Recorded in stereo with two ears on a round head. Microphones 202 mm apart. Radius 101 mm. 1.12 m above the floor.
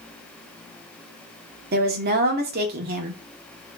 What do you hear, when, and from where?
1.7 s a woman speaking: 45° right (ahead or behind), 0.8 m